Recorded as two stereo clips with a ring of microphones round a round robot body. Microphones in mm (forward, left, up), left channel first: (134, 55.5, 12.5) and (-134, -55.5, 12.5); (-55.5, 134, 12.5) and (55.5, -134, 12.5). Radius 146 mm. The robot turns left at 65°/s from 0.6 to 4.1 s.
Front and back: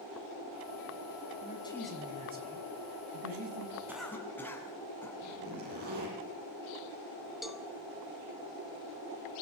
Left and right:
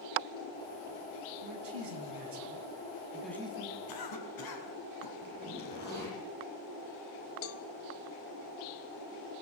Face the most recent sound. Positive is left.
turn(degrees=115)